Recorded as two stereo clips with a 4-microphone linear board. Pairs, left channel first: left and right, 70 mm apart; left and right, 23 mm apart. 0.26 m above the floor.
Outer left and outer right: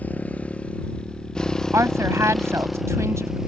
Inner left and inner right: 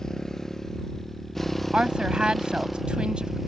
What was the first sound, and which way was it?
A motorcycle, 20° left (ahead or behind).